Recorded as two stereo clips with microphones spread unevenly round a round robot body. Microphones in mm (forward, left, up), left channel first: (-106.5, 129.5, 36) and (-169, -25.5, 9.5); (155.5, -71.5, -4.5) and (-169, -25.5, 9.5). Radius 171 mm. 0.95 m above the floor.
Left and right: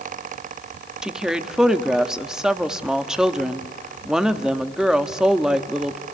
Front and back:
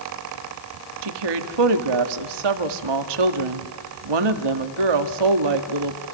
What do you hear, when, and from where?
1.0 s a woman speaking: 165° left, 1.9 m